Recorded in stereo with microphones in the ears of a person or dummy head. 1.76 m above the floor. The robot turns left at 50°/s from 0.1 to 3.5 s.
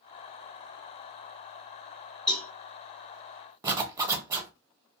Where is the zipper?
15° right (ahead or behind), 0.6 m.